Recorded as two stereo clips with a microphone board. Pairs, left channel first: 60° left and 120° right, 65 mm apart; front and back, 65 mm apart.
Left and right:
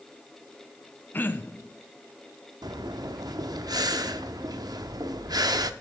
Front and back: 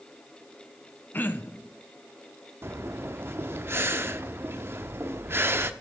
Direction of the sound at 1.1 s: 30° left.